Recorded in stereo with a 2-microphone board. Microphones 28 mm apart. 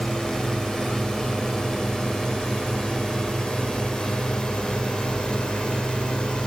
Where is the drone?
25° left (ahead or behind); by 6.5 s 35° left (ahead or behind).